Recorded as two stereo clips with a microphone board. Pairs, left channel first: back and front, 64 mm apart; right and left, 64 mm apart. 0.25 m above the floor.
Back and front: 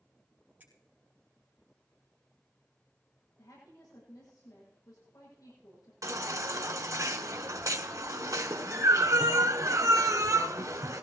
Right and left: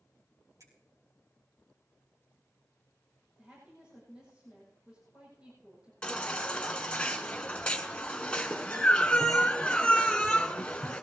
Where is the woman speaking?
165° left, 9 m.